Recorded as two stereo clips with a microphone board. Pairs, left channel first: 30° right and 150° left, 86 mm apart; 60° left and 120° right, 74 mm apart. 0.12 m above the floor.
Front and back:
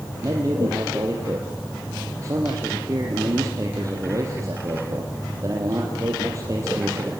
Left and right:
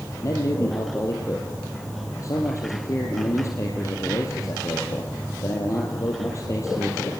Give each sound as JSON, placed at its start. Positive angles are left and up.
{"t": 0.2, "sound": "a man speaking", "azimuth_deg": 100, "distance_m": 4.0}